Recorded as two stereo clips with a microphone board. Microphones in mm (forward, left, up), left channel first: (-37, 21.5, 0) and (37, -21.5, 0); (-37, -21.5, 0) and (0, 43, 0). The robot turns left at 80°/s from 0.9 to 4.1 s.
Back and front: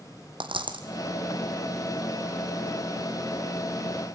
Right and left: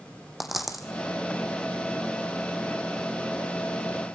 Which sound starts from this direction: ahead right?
A dropped coin, at 0.4 s.